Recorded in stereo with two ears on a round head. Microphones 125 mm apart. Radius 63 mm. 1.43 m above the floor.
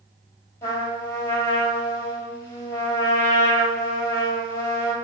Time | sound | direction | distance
0.6 | a trumpet | 20° left (ahead or behind) | 3.5 m